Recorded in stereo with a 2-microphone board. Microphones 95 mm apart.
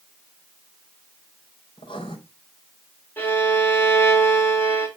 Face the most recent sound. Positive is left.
turn(degrees=20)  # may be behind; listen again after turning